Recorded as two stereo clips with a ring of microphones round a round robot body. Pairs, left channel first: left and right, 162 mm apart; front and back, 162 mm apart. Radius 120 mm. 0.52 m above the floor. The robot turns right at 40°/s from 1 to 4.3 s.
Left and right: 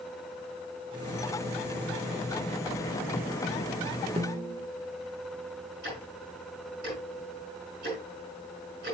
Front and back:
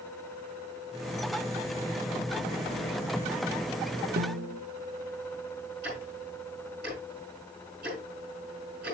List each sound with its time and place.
4.2 s a snare drum: 150° right, 0.5 m; by 4.7 s 145° right, 0.5 m
5.8 s ticking: 135° right, 5.5 m